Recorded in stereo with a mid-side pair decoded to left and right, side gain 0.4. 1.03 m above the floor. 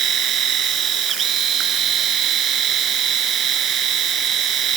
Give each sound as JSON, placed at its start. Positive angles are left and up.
{"t": 0.0, "sound": "a machine running", "azimuth_deg": -70}